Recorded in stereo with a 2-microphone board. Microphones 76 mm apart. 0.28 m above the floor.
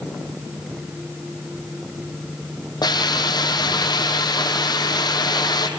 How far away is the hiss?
About 2.5 m.